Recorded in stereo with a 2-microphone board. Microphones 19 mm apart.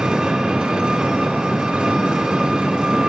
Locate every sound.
0.0 s an engine running: 60° right (ahead or behind), 1.1 m